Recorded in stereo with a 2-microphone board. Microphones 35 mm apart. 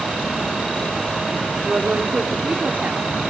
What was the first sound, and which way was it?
A woman speaking, 40° right (ahead or behind).